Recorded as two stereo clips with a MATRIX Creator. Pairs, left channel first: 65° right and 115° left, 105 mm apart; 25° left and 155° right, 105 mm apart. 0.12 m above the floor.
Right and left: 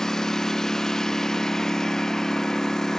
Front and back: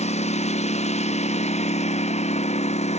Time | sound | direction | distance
0.0 | a lawn mower | 20° left | ?